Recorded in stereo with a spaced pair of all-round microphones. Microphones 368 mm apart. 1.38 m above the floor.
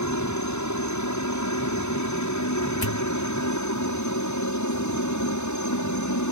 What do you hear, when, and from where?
0.0 s a helicopter: 50° left (ahead or behind)
2.8 s a pop: 80° left